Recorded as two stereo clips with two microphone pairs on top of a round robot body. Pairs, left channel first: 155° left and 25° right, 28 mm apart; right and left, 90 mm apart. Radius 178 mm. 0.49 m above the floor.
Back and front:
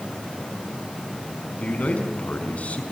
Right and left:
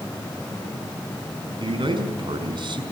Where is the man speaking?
120° left, 5 m.